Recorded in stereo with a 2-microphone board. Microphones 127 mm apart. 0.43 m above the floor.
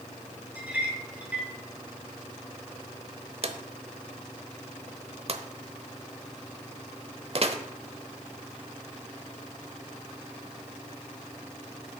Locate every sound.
0.6 s a clink: 10° right (ahead or behind), 2.5 m
3.4 s a drawer: 50° right (ahead or behind), 0.8 m